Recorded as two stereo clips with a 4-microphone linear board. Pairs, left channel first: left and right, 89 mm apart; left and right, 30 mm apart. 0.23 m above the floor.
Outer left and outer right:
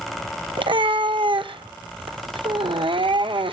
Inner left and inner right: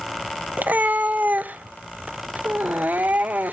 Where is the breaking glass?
No breaking glass in this recording.